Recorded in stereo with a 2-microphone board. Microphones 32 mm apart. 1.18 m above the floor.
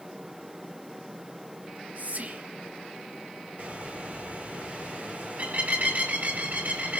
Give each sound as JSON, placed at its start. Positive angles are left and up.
{"t": 1.6, "sound": "whispering", "side_deg": -55, "distance_m": 1.9}
{"t": 3.6, "sound": "a bird", "side_deg": -45, "distance_m": 4.0}